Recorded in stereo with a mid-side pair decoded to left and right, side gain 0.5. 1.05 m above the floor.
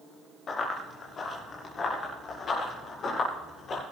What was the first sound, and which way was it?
Running footsteps, 45° left.